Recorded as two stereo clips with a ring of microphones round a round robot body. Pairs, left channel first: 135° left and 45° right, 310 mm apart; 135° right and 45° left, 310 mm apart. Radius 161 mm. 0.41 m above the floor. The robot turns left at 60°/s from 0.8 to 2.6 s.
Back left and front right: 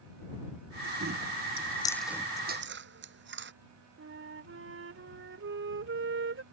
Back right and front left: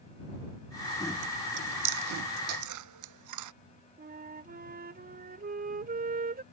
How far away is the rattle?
No rattle in this recording.